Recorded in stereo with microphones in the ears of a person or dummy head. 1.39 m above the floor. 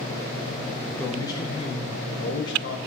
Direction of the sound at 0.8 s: 5° left (ahead or behind).